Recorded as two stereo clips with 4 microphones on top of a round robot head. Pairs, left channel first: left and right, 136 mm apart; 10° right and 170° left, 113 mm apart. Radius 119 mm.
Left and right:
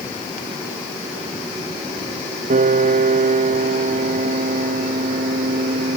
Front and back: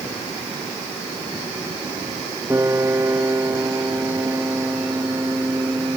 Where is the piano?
115° right.